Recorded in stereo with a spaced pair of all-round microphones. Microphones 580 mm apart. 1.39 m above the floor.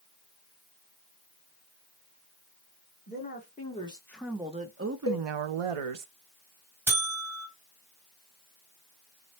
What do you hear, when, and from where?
3.1 s a woman speaking: 20° left (ahead or behind), 1.3 m; by 6.1 s 65° right (ahead or behind), 0.7 m
5.1 s a cowbell: 25° left (ahead or behind), 0.8 m
6.9 s a buzzer: 55° right (ahead or behind), 1.7 m